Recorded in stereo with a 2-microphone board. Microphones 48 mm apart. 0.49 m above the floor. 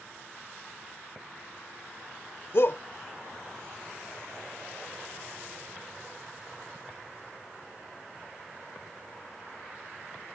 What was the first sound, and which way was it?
A shout, 55° left (ahead or behind).